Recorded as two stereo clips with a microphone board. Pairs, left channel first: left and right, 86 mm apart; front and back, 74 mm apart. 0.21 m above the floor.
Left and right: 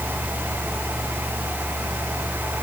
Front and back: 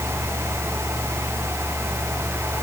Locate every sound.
Only background noise.